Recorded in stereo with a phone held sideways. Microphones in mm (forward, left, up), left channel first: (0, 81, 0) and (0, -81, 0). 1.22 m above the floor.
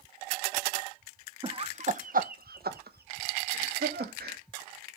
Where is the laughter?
30° right (ahead or behind), 0.8 m; by 4.4 s 80° right, 2 m.